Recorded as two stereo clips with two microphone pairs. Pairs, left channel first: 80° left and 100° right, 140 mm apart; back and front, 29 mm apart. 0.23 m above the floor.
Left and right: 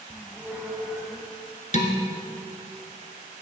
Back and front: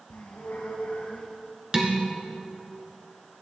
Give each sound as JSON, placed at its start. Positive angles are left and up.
{"t": 0.1, "sound": "a squeak", "azimuth_deg": 175, "distance_m": 3.0}
{"t": 1.7, "sound": "dishes clattering", "azimuth_deg": 60, "distance_m": 1.8}